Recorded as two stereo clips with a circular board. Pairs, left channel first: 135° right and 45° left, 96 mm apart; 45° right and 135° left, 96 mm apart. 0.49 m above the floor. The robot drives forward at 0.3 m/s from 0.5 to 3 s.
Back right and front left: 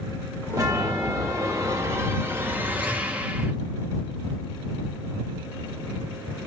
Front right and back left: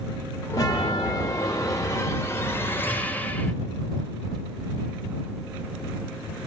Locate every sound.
0.5 s a chime: 5° right, 1.1 m; by 3.5 s 10° right, 0.6 m